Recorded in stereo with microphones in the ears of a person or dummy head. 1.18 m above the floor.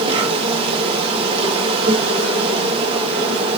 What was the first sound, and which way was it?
An insect, 30° right (ahead or behind).